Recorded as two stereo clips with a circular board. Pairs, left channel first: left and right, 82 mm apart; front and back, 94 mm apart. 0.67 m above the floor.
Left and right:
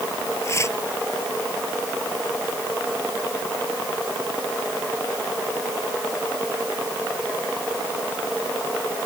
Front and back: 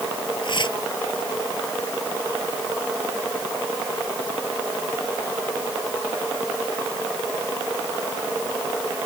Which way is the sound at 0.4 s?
35° left.